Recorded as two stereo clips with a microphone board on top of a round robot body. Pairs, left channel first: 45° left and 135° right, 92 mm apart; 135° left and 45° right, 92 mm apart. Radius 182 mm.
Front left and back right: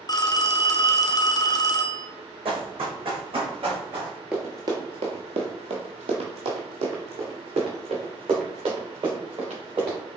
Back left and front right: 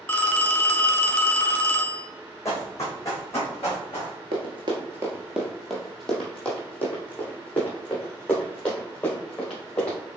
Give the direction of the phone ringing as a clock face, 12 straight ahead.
10 o'clock.